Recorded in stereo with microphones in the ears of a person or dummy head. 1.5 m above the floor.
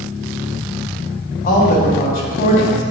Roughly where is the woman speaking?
Left.